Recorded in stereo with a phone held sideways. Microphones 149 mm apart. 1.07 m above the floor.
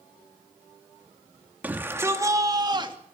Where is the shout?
10° right (ahead or behind), 2.5 m; by 3.0 s 35° right (ahead or behind), 2.5 m.